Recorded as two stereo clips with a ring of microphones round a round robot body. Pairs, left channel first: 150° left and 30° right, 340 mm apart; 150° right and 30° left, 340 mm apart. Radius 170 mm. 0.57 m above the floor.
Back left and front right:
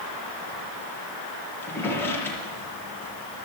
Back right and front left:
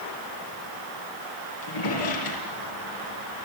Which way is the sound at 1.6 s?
125° right.